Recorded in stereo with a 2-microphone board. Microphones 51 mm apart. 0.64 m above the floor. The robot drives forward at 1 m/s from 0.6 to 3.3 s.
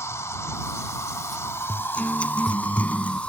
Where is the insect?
70° left (ahead or behind); by 3.3 s 30° left (ahead or behind).